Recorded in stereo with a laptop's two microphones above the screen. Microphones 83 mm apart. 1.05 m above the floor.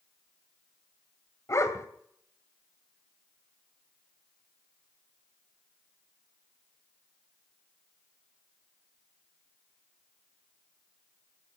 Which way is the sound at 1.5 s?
40° left (ahead or behind).